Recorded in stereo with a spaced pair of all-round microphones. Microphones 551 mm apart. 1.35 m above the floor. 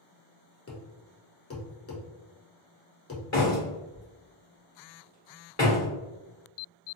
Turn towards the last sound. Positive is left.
turn(degrees=30)  # may be behind; listen again after turning